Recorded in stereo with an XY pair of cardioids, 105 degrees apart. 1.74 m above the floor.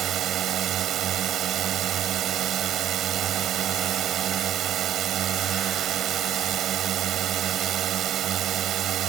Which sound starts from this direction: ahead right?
A drone, at 0.0 s.